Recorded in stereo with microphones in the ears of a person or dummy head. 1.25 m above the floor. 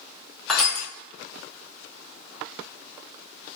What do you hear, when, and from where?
0.5 s crushing: centre (ahead or behind), 0.5 m